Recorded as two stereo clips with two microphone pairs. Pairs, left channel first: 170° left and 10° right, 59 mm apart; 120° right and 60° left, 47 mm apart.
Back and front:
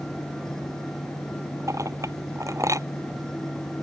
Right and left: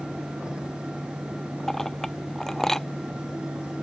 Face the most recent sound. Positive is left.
turn(degrees=-40)